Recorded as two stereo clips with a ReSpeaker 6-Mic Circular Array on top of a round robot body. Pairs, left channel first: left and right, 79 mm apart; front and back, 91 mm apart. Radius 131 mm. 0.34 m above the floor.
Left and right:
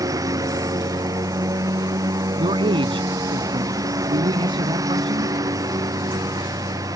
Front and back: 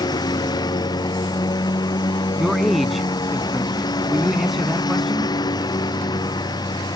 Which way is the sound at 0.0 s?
45° right.